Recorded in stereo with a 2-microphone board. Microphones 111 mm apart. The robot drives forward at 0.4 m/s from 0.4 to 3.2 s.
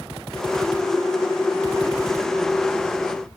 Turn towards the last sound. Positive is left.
No sound to turn to.